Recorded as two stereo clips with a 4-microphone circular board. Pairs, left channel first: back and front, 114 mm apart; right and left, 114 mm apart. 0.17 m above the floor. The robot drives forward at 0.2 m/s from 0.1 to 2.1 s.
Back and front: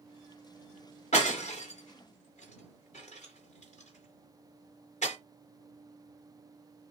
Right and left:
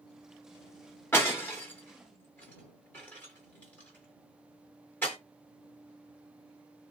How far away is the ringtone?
No ringtone in this recording.